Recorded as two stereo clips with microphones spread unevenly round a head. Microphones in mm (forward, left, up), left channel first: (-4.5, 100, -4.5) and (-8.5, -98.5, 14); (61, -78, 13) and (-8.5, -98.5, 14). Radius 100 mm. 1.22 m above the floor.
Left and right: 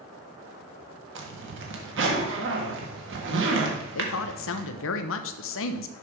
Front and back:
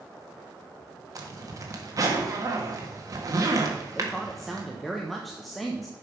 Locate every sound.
1.1 s a zipper: 120° right, 1.6 m
4.0 s a woman speaking: 105° left, 0.8 m